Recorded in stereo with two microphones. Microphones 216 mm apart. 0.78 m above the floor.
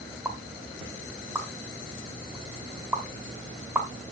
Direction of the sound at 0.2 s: 10° right (ahead or behind).